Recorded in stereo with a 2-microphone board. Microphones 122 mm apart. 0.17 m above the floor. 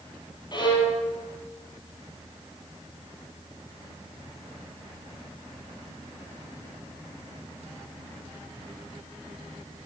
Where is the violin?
35° left (ahead or behind), 4 m.